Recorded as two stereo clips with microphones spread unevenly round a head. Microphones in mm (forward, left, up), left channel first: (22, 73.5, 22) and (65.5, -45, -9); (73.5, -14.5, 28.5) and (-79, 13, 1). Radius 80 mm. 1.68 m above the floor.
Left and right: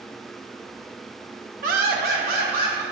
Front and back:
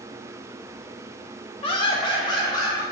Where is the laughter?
55° right, 0.7 m; by 2.8 s 75° right, 1.5 m.